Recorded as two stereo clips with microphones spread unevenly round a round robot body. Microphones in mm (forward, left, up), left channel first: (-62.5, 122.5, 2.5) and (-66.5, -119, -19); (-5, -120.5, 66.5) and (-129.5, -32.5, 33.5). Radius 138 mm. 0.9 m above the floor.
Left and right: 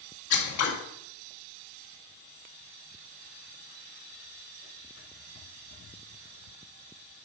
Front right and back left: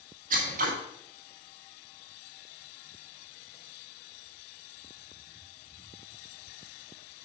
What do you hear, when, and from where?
0.3 s scissors: 115° left, 2 m